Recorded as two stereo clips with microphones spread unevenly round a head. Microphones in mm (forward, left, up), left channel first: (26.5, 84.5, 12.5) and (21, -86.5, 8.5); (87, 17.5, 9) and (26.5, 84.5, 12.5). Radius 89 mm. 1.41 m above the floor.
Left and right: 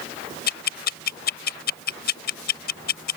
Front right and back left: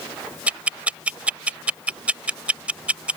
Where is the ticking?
55° left.